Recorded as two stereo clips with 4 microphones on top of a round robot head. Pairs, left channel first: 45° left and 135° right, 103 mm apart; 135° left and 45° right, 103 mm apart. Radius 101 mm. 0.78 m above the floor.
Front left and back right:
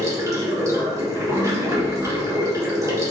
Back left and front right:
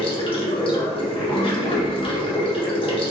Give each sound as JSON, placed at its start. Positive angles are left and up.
{"t": 0.0, "sound": "running water", "azimuth_deg": 165, "distance_m": 1.4}